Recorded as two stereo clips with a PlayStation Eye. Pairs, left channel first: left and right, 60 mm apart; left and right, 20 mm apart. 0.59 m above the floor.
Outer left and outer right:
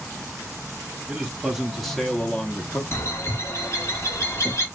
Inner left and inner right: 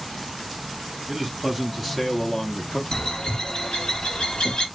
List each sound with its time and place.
1.1 s a man speaking: 10° right (ahead or behind), 1.5 m; by 2.8 s 30° left (ahead or behind), 0.9 m
2.9 s a bird: 45° left (ahead or behind), 1.3 m